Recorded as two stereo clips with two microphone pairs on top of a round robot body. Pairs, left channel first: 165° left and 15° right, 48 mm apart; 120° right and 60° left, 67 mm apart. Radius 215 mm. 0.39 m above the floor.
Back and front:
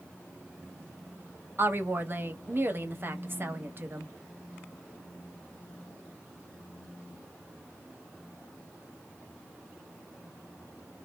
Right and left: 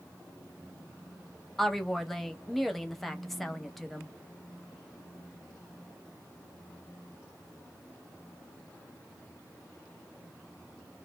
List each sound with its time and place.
1.6 s a woman speaking: 35° right, 1.0 m